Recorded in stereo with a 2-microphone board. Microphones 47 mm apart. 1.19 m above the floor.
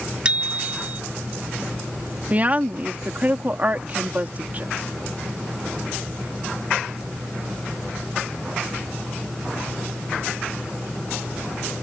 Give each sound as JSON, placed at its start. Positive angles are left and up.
{"t": 0.2, "sound": "a bicycle bell", "side_deg": -20}
{"t": 2.3, "sound": "a woman speaking", "side_deg": -35}